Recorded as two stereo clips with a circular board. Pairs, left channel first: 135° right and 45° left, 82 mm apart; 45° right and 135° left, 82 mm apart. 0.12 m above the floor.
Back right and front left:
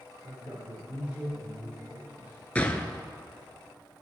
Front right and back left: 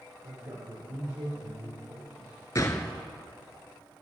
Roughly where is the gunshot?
Right.